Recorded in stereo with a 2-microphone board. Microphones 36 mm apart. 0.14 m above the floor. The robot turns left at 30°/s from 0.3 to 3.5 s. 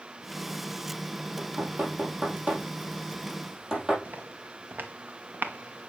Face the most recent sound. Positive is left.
turn(degrees=-75)  # may be behind; listen again after turning